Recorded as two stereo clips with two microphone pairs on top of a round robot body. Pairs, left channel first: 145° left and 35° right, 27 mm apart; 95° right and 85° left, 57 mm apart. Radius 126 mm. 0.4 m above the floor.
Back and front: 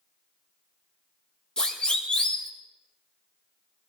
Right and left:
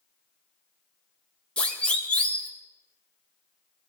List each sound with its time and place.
1.6 s a siren: 160° right, 2.5 m